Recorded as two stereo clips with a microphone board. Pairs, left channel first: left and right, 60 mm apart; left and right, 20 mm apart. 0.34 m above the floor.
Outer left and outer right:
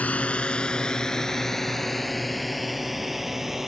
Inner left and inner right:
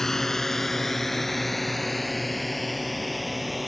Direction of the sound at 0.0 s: 25° left (ahead or behind).